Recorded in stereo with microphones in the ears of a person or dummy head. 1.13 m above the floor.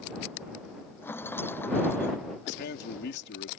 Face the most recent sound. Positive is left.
turn(degrees=60)  # may be behind; listen again after turning